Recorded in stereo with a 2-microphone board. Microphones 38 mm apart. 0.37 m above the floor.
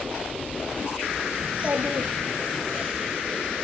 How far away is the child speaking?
About 1.6 m.